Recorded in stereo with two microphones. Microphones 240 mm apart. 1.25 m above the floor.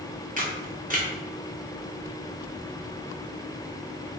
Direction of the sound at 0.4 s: 35° right (ahead or behind).